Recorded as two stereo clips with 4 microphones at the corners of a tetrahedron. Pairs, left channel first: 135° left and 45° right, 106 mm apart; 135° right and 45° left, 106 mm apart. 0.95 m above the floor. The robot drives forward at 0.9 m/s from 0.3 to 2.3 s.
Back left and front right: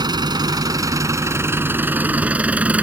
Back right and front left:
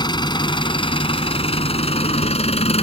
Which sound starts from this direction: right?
An engine running, at 0.0 s.